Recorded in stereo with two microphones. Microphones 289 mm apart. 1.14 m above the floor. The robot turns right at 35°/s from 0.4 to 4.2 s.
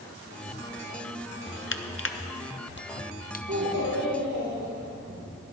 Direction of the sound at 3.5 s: 80° right.